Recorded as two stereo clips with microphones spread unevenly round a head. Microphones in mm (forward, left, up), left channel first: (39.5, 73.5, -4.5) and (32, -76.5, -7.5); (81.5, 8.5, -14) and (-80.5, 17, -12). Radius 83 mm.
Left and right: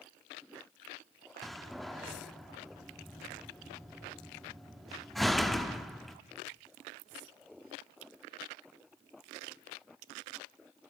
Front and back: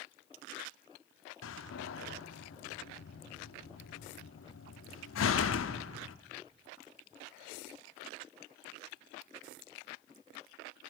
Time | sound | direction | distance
1.4 | a door slam | straight ahead | 1.1 m